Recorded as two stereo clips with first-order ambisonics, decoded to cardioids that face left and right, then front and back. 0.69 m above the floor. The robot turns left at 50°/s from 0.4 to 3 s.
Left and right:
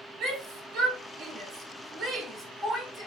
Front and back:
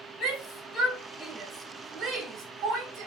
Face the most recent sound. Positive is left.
turn(degrees=-170)